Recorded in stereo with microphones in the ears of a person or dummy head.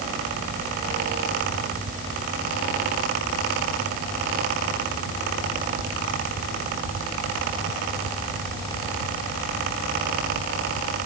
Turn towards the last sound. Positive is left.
No sound to turn to.